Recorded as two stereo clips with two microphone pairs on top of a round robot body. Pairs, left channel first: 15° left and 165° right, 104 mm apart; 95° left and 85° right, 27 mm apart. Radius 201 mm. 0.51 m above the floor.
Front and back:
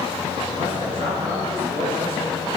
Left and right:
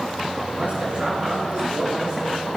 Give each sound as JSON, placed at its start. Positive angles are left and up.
{"t": 0.5, "sound": "a man speaking", "azimuth_deg": -130, "distance_m": 6.0}